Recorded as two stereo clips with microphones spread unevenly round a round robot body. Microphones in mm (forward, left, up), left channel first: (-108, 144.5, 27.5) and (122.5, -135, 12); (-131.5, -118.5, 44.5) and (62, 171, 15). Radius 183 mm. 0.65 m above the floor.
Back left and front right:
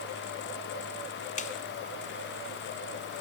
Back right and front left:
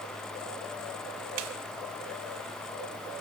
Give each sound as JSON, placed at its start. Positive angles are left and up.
{"t": 1.4, "sound": "a snare drum", "azimuth_deg": 60, "distance_m": 1.5}